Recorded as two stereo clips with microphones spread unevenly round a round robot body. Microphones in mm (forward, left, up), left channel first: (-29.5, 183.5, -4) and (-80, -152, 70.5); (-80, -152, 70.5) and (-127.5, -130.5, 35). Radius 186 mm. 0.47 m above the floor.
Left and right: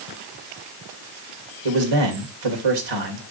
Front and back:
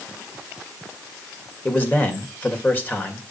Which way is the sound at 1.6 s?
100° right.